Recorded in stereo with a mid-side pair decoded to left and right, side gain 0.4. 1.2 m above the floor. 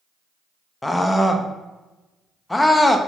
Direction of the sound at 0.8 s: 15° left.